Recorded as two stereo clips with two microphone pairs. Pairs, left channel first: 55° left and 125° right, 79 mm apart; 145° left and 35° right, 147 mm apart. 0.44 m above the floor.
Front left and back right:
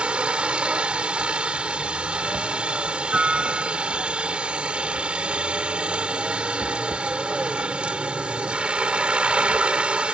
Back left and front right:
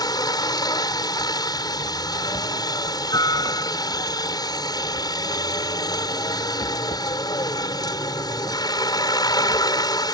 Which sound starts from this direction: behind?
A helicopter, at 0.0 s.